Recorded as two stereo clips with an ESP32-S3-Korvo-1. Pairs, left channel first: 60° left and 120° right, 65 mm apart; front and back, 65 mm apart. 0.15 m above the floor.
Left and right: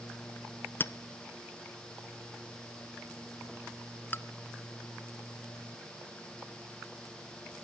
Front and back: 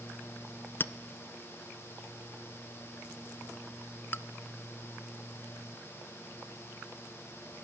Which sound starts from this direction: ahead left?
A clink, at 0.8 s.